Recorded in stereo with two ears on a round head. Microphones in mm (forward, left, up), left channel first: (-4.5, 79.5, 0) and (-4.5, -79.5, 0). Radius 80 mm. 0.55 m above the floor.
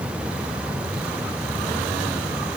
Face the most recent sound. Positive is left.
No sound to turn to.